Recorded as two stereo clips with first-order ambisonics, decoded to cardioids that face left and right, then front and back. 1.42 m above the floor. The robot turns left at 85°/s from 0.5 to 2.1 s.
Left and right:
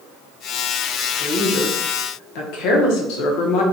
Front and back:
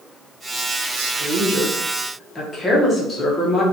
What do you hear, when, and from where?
1.0 s a woman speaking: 175° left, 0.6 m; by 3.6 s 75° left, 0.6 m